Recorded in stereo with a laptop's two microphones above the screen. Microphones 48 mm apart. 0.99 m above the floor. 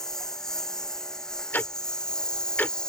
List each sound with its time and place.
0.0 s a lawn mower: 10° left (ahead or behind); by 2.9 s 15° left (ahead or behind)
1.5 s ticking: 40° left (ahead or behind)